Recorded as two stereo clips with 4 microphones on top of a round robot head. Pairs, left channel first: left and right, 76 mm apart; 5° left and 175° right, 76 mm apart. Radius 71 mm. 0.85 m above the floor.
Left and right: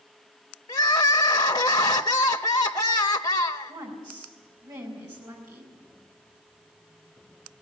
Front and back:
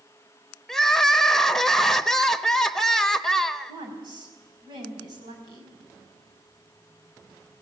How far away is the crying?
About 0.7 m.